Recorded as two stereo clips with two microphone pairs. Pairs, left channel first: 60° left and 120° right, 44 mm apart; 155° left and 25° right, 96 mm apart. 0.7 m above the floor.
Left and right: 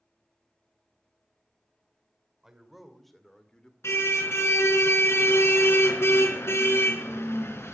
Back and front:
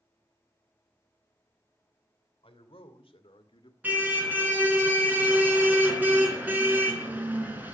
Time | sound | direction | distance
2.4 | a man speaking | 160° left | 2.5 m
3.8 | a car horn | 50° left | 3.5 m